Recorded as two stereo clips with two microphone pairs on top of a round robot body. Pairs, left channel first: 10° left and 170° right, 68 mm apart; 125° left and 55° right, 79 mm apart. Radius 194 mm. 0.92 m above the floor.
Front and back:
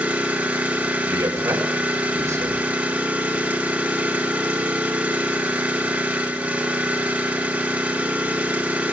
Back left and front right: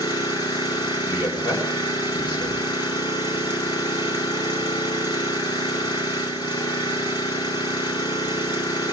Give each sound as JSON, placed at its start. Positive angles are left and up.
{"t": 0.0, "sound": "an engine running", "azimuth_deg": 120, "distance_m": 4.5}
{"t": 1.1, "sound": "a man speaking", "azimuth_deg": 145, "distance_m": 5.0}